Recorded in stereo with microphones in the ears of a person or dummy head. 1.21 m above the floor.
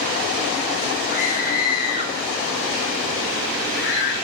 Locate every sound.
1.1 s a scream: 40° left (ahead or behind), 7 m; by 4.1 s 65° left (ahead or behind), 5.5 m